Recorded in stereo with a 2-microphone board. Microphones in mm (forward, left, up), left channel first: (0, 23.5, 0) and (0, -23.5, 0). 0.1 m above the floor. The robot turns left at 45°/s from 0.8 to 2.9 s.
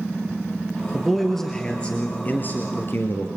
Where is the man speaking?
170° right, 2.5 m; by 3.3 s 105° left, 2.5 m.